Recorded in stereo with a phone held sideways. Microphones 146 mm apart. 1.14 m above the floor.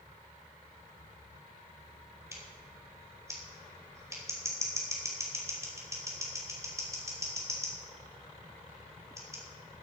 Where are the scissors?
20° right (ahead or behind), 3.5 m.